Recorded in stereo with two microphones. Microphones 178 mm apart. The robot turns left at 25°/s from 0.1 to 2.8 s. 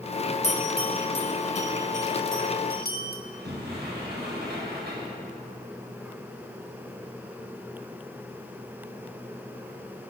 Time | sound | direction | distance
0.4 | a bell | 15° left (ahead or behind) | 1.7 m
3.2 | a sliding door | 70° right (ahead or behind) | 5 m